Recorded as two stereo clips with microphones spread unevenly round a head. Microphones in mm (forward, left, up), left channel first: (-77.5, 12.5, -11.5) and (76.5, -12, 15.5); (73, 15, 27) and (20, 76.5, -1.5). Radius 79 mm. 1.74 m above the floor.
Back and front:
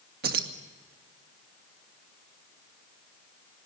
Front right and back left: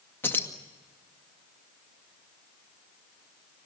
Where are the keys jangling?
5° left, 2 m.